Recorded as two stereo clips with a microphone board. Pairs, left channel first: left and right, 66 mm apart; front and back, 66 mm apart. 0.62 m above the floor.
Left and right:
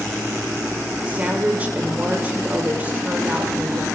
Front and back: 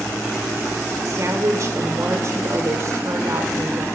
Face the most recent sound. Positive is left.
turn(degrees=-150)